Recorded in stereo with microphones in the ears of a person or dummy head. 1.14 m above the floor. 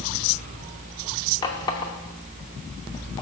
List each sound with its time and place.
1.4 s a running tap: 20° left (ahead or behind), 0.8 m